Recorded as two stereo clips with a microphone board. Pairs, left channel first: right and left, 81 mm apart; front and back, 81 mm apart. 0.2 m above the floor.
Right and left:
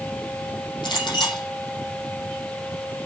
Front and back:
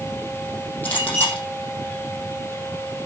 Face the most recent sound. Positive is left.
turn(degrees=-70)